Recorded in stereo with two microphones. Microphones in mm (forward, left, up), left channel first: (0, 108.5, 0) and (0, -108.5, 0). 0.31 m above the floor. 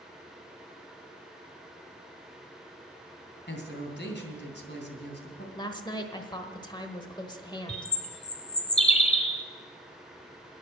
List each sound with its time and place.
3.5 s a man speaking: 55° left (ahead or behind), 2.5 m
5.5 s a woman speaking: 20° left (ahead or behind), 1.2 m
7.7 s a bird: 30° left (ahead or behind), 1.1 m